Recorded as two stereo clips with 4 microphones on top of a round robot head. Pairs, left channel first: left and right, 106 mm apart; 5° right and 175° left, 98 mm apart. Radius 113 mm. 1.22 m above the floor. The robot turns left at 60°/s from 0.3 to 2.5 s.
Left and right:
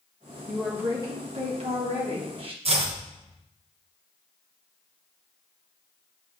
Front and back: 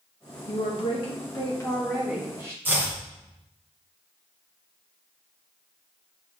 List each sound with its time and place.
0.5 s a woman speaking: straight ahead, 2 m; by 2.5 s 120° right, 2 m
2.6 s chopping: 110° right, 1.6 m